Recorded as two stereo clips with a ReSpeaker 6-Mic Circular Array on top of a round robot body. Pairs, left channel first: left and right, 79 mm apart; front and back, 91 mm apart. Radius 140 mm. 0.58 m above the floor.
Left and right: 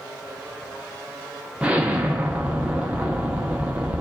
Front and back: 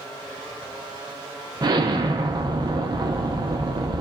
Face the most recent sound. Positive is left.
turn(degrees=-160)